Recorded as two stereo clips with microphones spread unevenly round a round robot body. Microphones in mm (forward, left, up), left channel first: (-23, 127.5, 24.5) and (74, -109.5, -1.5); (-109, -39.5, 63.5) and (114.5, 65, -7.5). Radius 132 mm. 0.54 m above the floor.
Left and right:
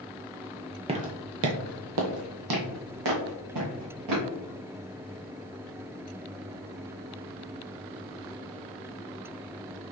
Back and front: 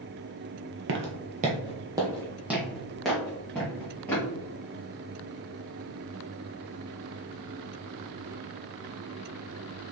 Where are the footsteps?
10° right, 0.6 m; by 4.3 s 75° right, 2 m.